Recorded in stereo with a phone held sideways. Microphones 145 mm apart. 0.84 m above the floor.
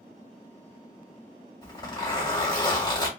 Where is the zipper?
30° left (ahead or behind), 1.7 m.